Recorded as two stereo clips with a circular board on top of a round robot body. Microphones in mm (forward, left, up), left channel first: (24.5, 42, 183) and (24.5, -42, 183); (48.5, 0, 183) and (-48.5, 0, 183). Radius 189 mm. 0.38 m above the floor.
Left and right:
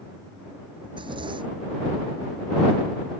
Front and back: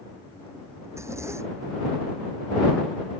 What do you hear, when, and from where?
0.8 s a zipper: 115° right